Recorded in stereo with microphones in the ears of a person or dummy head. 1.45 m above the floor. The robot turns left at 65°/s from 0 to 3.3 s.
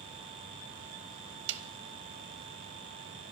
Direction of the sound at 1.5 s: 60° right (ahead or behind).